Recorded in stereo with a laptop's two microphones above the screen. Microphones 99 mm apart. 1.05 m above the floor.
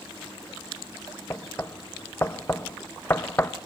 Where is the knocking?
25° left (ahead or behind), 0.6 m.